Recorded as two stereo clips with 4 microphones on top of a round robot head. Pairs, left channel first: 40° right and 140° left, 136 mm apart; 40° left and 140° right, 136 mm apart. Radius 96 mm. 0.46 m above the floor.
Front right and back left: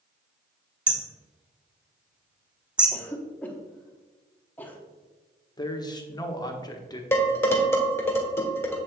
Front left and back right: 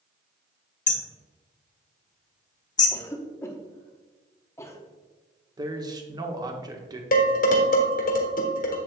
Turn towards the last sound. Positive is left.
turn(degrees=30)